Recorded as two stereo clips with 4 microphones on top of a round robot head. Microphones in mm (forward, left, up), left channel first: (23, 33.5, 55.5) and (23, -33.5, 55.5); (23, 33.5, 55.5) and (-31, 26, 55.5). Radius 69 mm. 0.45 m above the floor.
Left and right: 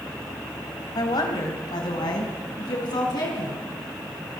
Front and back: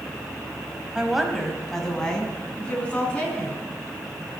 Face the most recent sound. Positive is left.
turn(degrees=75)